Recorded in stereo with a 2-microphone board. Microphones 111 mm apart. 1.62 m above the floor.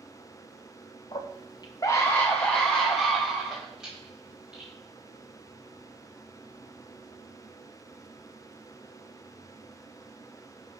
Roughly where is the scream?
Left.